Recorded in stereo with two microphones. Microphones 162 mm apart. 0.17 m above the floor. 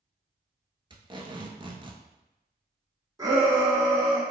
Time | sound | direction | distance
0.9 | tape being pulled | 35° right (ahead or behind) | 0.6 m
3.2 | a shout | 20° right (ahead or behind) | 1.4 m